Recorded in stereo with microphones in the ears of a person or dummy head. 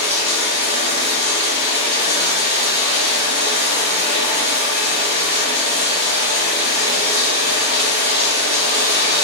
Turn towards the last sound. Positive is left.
turn(degrees=-35)  # may be behind; listen again after turning